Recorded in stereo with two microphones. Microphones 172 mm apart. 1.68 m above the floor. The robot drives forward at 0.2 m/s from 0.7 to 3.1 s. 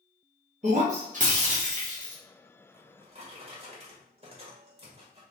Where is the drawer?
35° right (ahead or behind), 1.3 m.